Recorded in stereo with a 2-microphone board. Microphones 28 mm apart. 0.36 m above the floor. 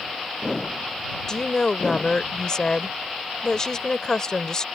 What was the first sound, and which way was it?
A woman speaking, 30° left (ahead or behind).